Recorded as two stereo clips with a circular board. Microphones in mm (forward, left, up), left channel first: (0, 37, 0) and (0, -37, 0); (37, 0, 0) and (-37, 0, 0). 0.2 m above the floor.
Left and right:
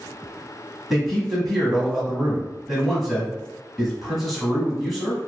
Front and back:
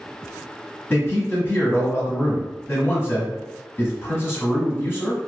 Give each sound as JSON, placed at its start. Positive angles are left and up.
{"t": 0.9, "sound": "a man speaking", "azimuth_deg": 5, "distance_m": 1.2}